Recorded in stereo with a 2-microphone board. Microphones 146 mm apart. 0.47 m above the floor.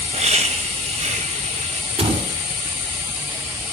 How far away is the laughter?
About 2.5 m.